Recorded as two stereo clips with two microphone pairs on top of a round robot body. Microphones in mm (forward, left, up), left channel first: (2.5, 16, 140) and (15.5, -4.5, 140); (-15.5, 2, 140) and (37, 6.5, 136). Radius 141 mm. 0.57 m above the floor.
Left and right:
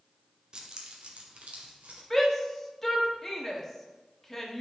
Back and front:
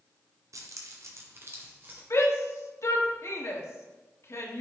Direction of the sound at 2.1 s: 160° right.